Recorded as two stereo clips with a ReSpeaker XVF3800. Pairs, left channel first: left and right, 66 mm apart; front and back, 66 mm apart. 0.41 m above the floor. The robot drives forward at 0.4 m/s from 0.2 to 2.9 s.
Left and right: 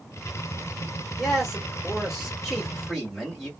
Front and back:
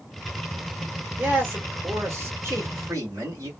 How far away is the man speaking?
About 1.3 m.